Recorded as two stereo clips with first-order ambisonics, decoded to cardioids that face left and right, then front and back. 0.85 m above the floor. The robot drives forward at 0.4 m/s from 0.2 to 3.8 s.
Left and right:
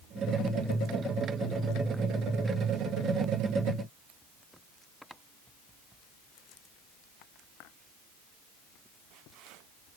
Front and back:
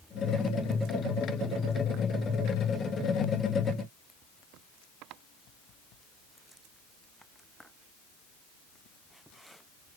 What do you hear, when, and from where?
Only background noise.